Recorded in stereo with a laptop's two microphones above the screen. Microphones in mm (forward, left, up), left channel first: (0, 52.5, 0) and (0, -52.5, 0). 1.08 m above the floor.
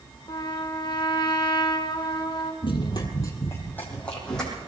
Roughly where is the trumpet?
Left.